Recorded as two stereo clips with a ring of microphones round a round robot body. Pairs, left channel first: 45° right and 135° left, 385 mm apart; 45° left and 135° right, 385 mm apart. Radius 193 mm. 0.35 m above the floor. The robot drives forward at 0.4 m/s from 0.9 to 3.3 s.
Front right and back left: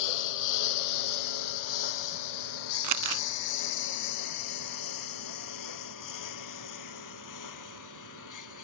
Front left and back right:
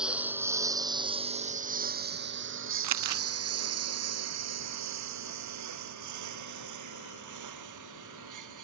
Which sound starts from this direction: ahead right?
A lawn mower, at 0.0 s.